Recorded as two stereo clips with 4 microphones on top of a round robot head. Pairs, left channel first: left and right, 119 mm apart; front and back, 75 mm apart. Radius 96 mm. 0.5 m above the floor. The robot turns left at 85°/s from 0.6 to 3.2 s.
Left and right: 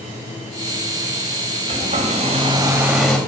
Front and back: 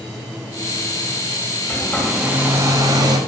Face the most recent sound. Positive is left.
turn(degrees=165)